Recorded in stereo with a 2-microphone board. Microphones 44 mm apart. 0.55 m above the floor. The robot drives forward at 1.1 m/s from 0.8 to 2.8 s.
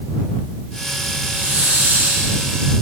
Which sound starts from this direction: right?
A hiss, at 1.2 s.